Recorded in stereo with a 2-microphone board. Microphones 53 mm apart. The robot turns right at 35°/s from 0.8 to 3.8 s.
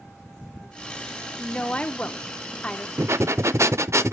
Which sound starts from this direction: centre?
A woman speaking, at 1.4 s.